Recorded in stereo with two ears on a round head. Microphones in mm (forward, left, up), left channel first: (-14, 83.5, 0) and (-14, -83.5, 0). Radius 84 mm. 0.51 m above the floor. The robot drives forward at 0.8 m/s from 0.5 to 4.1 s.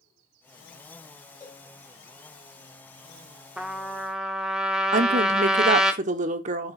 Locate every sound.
1.4 s a cowbell: 25° left (ahead or behind), 5.5 m
3.6 s a trumpet: 5° right (ahead or behind), 0.7 m
4.9 s a woman speaking: 40° right (ahead or behind), 0.9 m